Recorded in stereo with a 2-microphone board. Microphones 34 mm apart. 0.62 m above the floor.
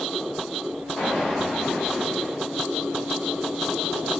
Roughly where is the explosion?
Left.